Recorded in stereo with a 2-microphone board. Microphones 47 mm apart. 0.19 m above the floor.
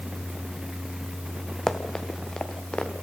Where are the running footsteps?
10° left (ahead or behind), 2.5 m; by 2.9 s 25° left (ahead or behind), 3.5 m.